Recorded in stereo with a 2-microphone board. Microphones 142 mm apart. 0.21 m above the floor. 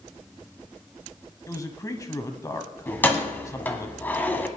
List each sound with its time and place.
1.5 s a man speaking: 25° left (ahead or behind), 1.1 m
2.9 s keys jangling: 15° left (ahead or behind), 1.1 m